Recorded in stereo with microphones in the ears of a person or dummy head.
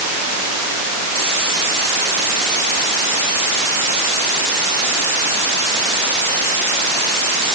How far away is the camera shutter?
I don't hear a camera shutter.